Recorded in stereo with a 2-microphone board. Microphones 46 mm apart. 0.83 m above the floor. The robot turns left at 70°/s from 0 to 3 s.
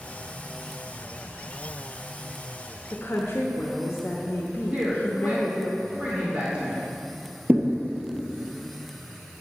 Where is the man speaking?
25° right (ahead or behind), 2 m.